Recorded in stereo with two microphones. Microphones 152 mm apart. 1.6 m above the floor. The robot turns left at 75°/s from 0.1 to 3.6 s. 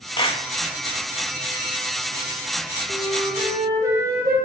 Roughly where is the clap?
Left.